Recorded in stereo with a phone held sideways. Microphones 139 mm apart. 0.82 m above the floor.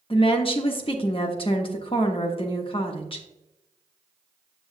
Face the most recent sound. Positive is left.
turn(degrees=40)  # may be behind; listen again after turning